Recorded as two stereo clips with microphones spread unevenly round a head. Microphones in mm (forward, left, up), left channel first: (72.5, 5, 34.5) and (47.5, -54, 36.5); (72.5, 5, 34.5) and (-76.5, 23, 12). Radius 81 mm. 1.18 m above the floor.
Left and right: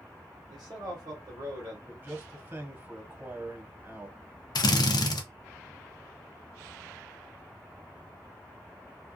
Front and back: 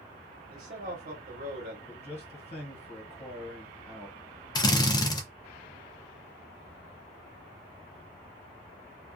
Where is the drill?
60° left, 0.5 m.